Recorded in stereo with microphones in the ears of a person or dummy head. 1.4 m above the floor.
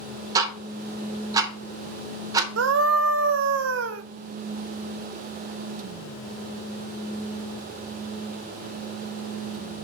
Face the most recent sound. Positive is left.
turn(degrees=-70)  # may be behind; listen again after turning